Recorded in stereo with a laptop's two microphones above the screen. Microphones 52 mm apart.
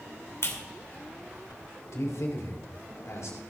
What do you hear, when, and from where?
0.4 s a clap: 60° left (ahead or behind), 2.5 m
1.9 s a man speaking: 75° left (ahead or behind), 3.5 m